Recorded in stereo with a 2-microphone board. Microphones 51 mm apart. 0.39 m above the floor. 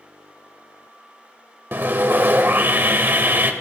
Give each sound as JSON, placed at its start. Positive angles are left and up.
{"t": 1.7, "sound": "sawing", "side_deg": -45, "distance_m": 0.9}